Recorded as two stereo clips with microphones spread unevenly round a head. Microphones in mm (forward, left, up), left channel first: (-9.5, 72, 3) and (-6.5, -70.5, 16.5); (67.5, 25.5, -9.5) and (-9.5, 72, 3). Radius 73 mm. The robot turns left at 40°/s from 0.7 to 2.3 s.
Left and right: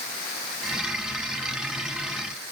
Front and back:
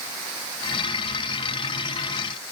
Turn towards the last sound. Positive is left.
No sound to turn to.